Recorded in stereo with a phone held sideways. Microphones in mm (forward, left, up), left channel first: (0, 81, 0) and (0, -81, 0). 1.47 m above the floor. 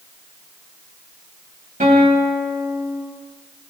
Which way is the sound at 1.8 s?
50° right (ahead or behind).